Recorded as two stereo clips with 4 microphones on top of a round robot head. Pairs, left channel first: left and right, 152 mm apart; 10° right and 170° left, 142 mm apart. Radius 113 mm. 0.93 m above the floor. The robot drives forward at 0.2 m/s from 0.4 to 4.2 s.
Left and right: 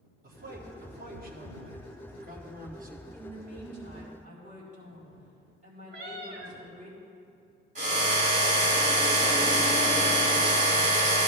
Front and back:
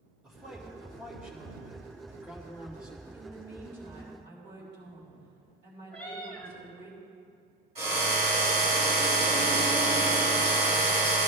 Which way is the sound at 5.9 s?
90° right.